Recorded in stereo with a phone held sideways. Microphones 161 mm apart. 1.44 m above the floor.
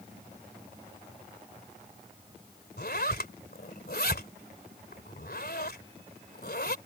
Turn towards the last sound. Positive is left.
turn(degrees=75)  # may be behind; listen again after turning